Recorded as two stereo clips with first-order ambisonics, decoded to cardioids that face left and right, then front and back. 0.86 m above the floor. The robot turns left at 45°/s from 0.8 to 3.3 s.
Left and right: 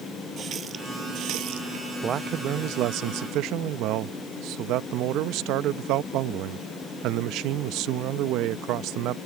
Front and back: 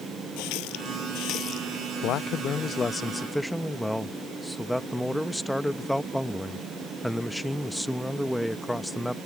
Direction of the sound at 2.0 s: 30° right.